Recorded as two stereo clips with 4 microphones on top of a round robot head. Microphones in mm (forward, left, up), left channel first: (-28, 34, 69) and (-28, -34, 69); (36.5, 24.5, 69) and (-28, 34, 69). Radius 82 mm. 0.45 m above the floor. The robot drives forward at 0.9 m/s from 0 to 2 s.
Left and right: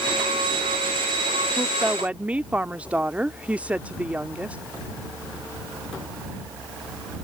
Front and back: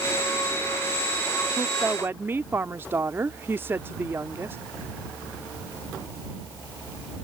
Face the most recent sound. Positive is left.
turn(degrees=-150)